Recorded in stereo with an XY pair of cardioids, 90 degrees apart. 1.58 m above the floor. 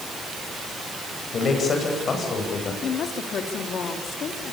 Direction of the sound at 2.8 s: 70° left.